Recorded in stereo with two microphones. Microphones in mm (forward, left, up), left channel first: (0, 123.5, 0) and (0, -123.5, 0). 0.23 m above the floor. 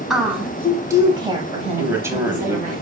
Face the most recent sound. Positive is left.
turn(degrees=-10)  # may be behind; listen again after turning